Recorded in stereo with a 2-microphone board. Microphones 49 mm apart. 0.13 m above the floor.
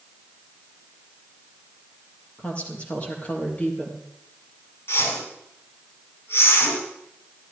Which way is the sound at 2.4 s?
25° left (ahead or behind).